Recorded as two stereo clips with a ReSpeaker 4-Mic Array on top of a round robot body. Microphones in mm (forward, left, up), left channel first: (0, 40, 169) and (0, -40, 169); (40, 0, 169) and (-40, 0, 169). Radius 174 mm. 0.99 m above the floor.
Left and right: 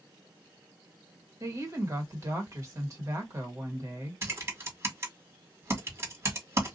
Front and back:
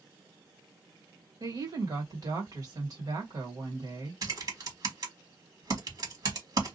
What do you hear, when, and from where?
1.4 s a woman speaking: 140° right, 1.6 m
4.2 s typing on a keyboard: 145° right, 1.8 m